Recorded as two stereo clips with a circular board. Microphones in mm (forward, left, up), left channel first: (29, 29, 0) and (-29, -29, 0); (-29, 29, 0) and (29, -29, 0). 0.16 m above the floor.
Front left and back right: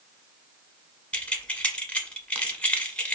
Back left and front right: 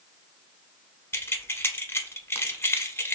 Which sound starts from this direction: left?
Keys jangling, at 1.1 s.